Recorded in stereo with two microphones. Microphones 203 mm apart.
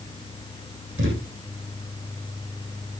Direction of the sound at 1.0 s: 75° right (ahead or behind).